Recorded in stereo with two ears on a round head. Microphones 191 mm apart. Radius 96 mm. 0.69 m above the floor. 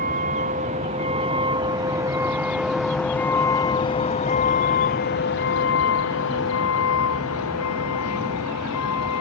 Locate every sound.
0.0 s a vehicle: 40° right (ahead or behind); by 9.2 s 80° left